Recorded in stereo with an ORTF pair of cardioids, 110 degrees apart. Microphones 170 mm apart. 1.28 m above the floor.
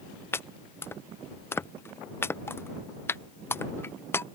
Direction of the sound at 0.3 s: 15° left.